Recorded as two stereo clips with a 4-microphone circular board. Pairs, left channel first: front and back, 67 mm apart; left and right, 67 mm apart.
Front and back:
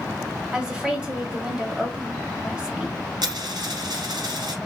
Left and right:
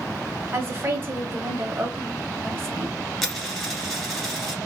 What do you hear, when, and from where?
0.5 s a woman speaking: 115° right, 1.3 m
3.2 s a dropped coin: 175° left, 1.7 m